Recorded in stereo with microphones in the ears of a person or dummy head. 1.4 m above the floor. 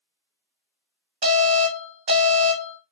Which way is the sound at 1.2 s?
25° right (ahead or behind).